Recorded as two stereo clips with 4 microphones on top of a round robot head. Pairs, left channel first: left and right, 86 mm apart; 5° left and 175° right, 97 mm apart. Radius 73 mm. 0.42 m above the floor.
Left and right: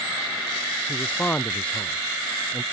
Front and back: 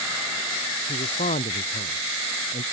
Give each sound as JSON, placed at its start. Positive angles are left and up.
{"t": 0.9, "sound": "a man speaking", "azimuth_deg": 15}